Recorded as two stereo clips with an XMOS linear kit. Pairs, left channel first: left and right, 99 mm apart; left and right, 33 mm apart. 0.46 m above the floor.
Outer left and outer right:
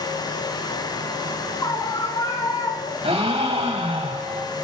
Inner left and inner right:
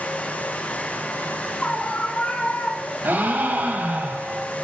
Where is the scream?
35° left (ahead or behind), 6.5 m.